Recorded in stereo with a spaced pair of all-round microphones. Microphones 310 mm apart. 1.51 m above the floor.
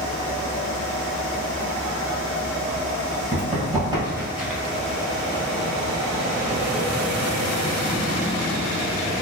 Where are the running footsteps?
25° right (ahead or behind), 1.6 m; by 4.6 s 5° left (ahead or behind), 1.6 m.